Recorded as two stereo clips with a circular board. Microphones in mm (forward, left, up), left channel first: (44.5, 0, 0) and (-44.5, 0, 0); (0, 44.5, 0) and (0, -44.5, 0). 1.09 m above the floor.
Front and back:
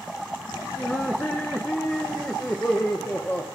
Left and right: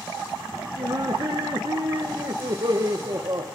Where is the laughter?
65° right, 1.2 m.